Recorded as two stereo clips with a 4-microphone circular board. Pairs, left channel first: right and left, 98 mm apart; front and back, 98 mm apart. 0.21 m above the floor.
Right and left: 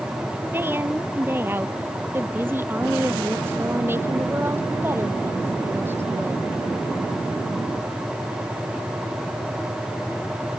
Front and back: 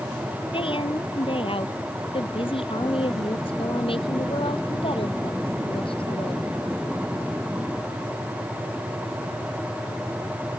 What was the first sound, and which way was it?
A woman speaking, 20° left.